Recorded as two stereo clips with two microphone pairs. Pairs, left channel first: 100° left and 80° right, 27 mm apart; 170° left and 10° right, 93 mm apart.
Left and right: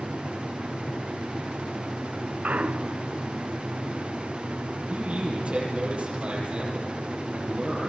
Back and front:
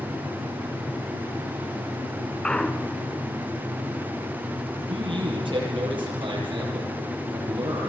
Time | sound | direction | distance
2.4 | a clunk | 110° right | 0.8 m
4.9 | a man speaking | 40° right | 9.5 m